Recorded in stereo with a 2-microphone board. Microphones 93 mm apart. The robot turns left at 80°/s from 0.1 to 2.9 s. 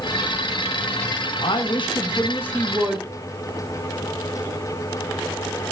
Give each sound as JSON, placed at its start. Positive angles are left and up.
{"t": 1.4, "sound": "a woman speaking", "azimuth_deg": 105, "distance_m": 1.3}